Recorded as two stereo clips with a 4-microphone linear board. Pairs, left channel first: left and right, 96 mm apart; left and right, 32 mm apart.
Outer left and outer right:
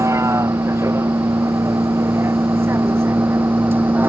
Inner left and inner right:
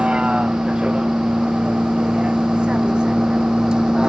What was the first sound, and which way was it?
A vehicle, 30° right (ahead or behind).